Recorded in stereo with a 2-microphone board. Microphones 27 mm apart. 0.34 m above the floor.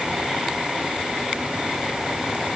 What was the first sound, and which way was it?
Only background noise.